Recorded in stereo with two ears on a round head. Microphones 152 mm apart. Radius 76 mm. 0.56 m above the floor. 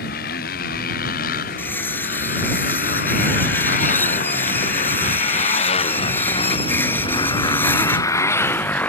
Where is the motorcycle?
60° left (ahead or behind); by 8.9 s 10° left (ahead or behind).